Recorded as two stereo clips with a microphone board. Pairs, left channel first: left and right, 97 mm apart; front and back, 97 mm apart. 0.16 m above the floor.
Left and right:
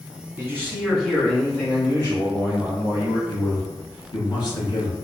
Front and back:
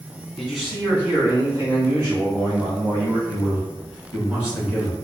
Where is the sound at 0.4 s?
80° right, 1.1 m; by 3.2 s 145° left, 2.5 m.